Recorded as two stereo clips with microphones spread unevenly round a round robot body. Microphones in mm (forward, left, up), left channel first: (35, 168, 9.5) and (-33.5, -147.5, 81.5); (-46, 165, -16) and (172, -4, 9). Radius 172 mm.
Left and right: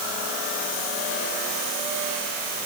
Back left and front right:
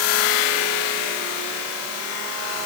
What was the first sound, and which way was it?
Only background noise.